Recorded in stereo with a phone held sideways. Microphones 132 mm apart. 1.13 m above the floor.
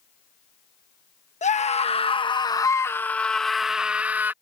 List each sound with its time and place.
1.4 s a scream: 60° left (ahead or behind); by 4.3 s 15° right (ahead or behind)